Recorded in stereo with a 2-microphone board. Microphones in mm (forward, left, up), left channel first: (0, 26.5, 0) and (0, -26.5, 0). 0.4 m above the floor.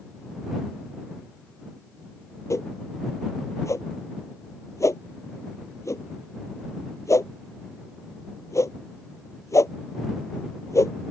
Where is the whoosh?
70° left (ahead or behind).